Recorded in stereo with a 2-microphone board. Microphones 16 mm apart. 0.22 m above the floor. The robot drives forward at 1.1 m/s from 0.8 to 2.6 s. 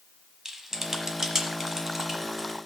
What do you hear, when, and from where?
0.5 s typing on a keyboard: 30° right (ahead or behind), 1.3 m; by 2.6 s 15° right (ahead or behind), 2.5 m